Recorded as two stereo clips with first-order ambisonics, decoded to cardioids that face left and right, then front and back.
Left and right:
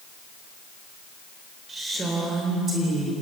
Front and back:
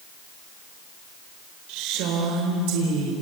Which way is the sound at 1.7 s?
160° right.